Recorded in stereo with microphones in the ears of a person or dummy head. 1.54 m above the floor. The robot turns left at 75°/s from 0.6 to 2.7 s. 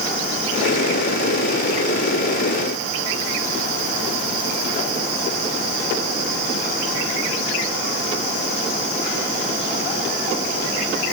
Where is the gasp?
No gasp in this recording.